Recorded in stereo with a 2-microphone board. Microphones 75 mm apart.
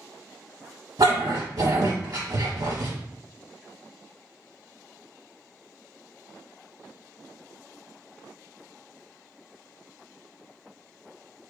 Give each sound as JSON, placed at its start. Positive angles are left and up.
{"t": 1.0, "sound": "a dog barking", "side_deg": -60, "distance_m": 0.8}